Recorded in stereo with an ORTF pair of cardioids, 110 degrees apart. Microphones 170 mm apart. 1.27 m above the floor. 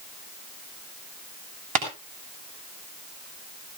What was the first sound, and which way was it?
Tapping, 50° right.